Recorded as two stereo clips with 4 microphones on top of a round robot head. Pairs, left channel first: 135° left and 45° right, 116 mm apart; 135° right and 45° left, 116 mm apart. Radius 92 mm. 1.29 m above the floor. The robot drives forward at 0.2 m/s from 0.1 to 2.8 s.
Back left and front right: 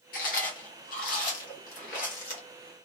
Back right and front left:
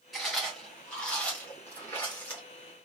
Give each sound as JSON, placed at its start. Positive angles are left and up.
{"t": 0.1, "sound": "chewing", "azimuth_deg": 135, "distance_m": 1.0}